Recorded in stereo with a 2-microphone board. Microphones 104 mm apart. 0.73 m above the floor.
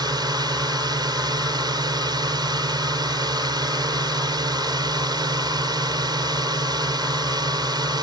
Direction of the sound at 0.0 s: 45° right (ahead or behind).